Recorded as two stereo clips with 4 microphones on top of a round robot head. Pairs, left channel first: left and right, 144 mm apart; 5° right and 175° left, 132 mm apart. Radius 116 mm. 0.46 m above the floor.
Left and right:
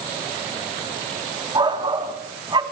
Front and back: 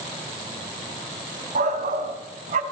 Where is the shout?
150° right, 3.5 m.